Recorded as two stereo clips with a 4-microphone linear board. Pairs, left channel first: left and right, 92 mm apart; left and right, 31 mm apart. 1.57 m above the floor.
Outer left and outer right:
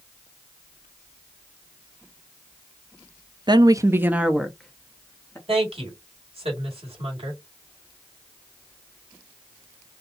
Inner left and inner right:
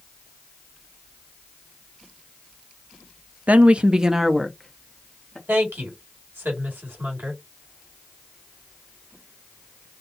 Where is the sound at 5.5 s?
85° right, 2.5 m.